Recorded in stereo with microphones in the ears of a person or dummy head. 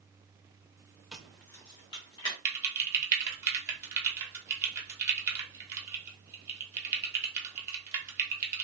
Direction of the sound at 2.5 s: 15° right (ahead or behind).